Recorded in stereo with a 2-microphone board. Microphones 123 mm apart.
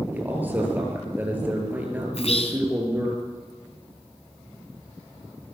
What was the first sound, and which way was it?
A man speaking, 15° right (ahead or behind).